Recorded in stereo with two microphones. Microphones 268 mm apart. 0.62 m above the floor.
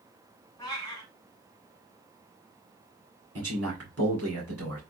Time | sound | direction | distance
0.6 | a cat meowing | 15° left (ahead or behind) | 1.3 m
3.4 | a man speaking | 60° right (ahead or behind) | 1.9 m